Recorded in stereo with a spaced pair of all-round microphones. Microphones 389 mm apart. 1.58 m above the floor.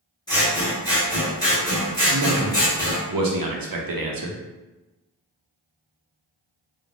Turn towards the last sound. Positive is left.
turn(degrees=-60)  # may be behind; listen again after turning